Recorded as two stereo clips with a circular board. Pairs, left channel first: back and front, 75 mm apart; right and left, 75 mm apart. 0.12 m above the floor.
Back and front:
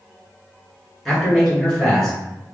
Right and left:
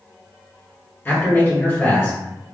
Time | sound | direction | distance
1.1 | a man speaking | 95° right | 1.5 m